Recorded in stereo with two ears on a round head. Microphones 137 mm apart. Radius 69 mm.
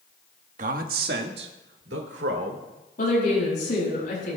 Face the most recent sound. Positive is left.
turn(degrees=60)  # may be behind; listen again after turning